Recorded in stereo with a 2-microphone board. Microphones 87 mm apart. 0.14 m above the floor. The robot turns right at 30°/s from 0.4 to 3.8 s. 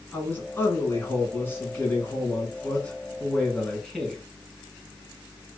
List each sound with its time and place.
0.1 s a man speaking: 25° left (ahead or behind), 1.4 m; by 4.2 s 5° left (ahead or behind), 1.4 m